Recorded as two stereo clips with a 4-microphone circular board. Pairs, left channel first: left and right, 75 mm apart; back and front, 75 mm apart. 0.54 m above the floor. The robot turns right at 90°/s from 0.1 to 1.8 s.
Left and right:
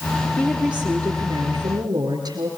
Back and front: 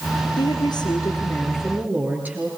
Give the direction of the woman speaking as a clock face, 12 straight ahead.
7 o'clock.